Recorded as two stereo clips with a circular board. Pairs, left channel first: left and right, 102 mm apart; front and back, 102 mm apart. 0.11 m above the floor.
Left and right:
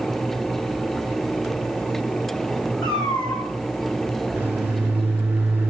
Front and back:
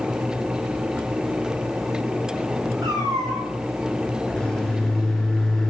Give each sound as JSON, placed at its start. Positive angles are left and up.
{"t": 2.8, "sound": "a cat meowing", "azimuth_deg": 130, "distance_m": 3.0}
{"t": 4.4, "sound": "a microwave", "azimuth_deg": -70, "distance_m": 0.9}